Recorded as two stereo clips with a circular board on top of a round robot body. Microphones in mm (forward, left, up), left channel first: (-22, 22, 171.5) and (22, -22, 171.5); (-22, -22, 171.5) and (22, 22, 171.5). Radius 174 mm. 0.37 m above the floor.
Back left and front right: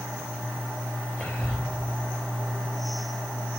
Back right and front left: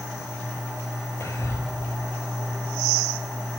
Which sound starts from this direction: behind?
Whispering, at 1.2 s.